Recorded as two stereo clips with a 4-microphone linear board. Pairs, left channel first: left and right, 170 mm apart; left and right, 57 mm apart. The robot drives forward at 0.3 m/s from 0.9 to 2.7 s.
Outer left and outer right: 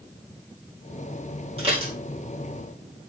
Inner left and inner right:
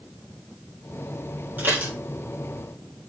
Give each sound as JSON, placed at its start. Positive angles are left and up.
{"t": 1.6, "sound": "dishes clattering", "side_deg": -35, "distance_m": 3.5}